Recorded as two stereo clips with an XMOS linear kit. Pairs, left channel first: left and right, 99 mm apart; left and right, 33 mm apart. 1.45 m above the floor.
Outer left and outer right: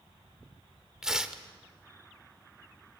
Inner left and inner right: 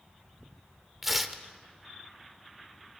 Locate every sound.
1.0 s tearing paper: 5° right (ahead or behind), 1.2 m